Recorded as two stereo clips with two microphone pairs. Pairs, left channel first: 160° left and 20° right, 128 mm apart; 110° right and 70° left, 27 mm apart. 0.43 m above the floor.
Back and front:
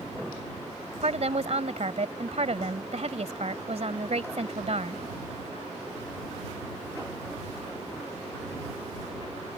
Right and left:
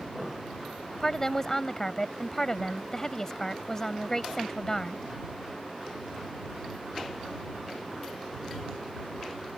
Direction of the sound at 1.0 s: 40° right.